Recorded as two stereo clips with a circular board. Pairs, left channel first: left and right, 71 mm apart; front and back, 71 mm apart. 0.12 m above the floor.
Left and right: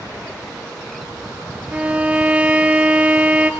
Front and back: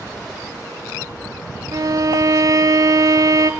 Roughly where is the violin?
Behind.